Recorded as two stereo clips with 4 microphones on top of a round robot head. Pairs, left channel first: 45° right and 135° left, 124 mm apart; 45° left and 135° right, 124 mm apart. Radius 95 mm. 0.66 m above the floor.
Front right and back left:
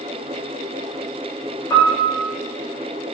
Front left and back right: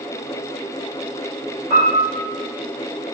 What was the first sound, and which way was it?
A piano, 110° right.